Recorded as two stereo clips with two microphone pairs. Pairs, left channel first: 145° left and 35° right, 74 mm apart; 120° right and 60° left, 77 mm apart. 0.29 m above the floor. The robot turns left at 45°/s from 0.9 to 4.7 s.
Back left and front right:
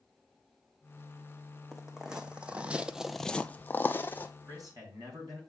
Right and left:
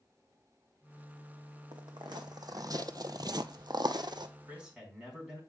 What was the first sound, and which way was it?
Footsteps, 55° left.